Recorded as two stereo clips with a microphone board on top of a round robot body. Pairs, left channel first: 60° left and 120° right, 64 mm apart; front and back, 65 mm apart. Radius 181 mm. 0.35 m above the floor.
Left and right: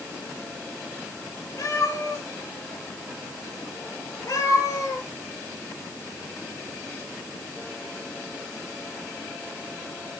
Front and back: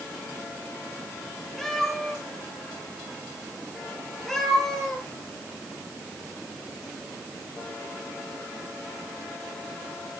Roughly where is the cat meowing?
Left.